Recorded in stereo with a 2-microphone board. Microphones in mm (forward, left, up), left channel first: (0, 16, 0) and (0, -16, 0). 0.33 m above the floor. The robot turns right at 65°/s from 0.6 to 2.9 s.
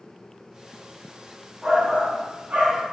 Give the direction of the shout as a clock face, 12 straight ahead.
5 o'clock.